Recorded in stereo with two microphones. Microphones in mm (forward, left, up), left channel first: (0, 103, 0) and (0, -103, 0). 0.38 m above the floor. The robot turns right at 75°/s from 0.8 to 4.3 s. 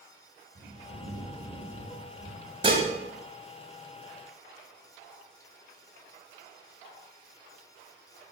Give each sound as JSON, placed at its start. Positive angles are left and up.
{"t": 0.6, "sound": "a bird", "azimuth_deg": -65, "distance_m": 3.5}
{"t": 2.6, "sound": "dishes clattering", "side_deg": -25, "distance_m": 1.6}